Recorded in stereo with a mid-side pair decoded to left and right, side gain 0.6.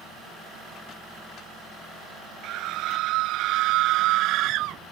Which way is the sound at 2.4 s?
70° right.